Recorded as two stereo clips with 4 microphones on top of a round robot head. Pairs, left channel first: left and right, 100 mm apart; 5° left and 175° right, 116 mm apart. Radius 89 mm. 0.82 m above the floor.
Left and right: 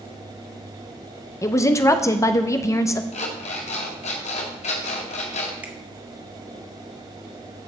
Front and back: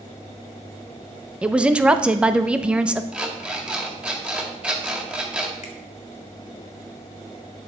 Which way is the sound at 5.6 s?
15° right.